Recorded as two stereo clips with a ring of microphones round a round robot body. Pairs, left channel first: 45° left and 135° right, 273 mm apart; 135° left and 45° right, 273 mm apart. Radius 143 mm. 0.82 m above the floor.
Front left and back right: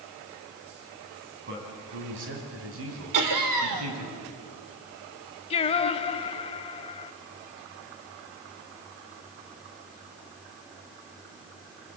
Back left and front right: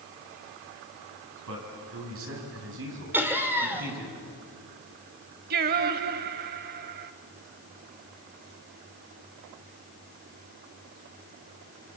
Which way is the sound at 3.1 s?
130° right.